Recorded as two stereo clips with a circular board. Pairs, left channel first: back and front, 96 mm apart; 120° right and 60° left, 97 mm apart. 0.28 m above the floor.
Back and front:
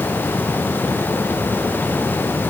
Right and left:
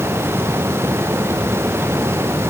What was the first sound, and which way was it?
Only background noise.